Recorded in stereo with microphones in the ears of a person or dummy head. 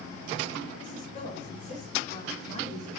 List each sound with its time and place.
0.8 s a woman speaking: 45° left (ahead or behind), 7 m; by 3.0 s 40° left (ahead or behind), 6.5 m